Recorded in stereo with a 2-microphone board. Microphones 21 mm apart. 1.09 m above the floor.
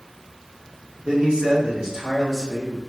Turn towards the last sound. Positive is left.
turn(degrees=-5)  # may be behind; listen again after turning